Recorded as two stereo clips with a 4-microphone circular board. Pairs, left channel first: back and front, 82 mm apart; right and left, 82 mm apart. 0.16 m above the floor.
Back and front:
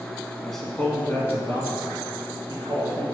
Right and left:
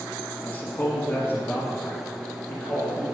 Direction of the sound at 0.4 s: 95° right.